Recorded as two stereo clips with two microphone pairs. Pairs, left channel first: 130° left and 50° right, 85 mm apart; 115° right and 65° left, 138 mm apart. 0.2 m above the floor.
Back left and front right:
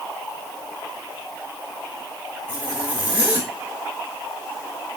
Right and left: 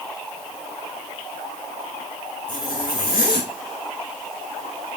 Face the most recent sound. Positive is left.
turn(degrees=-125)